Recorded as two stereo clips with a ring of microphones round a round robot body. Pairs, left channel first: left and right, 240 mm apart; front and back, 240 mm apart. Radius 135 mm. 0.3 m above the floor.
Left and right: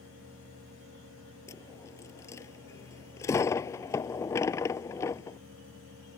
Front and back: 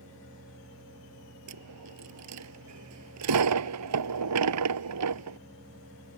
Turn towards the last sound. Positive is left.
turn(degrees=170)